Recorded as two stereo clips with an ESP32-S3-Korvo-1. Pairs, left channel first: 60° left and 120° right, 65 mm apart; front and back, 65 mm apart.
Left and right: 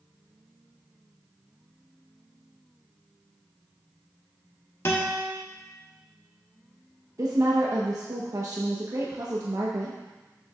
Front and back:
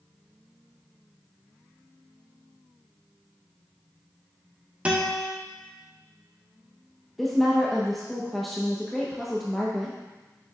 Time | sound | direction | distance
4.8 | a guitar | 110° left | 1.4 m
7.2 | a woman speaking | 85° right | 1.0 m